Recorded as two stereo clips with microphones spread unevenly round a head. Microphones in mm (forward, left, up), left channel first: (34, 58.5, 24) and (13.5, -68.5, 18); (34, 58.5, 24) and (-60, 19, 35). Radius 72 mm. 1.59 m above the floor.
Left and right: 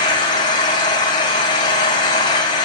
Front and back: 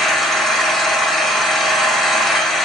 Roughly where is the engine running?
Behind left.